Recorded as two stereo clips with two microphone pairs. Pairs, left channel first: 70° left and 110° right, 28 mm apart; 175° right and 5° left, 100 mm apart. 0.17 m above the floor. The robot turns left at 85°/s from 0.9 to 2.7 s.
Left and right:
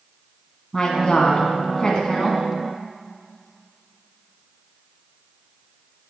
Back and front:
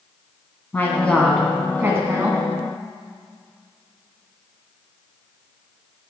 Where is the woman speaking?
130° left, 1.2 m; by 2.4 s straight ahead, 1.2 m.